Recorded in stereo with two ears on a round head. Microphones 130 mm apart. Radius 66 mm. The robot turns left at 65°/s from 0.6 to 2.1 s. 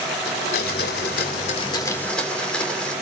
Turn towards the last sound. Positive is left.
turn(degrees=5)